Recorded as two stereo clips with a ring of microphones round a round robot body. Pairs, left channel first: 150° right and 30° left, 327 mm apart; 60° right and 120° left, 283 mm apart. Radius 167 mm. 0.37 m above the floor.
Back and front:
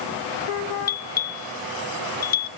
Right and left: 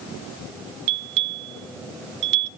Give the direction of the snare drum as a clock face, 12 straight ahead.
No snare drum in this recording.